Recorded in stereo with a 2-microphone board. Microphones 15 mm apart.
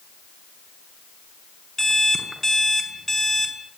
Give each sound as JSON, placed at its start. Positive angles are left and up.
{"t": 1.8, "sound": "an alarm clock", "side_deg": 15, "distance_m": 4.5}